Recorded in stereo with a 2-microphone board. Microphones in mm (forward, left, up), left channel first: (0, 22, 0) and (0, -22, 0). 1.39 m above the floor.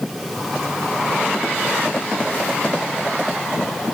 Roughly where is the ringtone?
No ringtone in this recording.